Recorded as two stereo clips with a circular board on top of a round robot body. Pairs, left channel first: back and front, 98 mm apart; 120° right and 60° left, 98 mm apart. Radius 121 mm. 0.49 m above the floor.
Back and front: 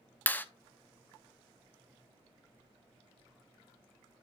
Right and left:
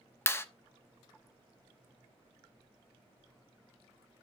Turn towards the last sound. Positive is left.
turn(degrees=-135)